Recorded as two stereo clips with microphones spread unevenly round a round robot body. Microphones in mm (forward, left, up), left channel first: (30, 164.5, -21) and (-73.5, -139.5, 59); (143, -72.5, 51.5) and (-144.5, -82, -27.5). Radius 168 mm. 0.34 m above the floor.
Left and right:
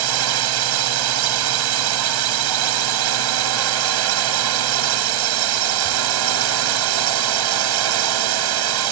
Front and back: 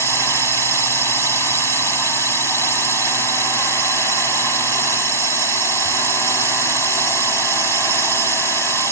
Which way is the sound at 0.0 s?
90° right.